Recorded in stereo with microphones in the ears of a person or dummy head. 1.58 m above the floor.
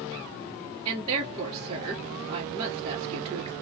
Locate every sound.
0.8 s a woman speaking: 25° right (ahead or behind), 1.4 m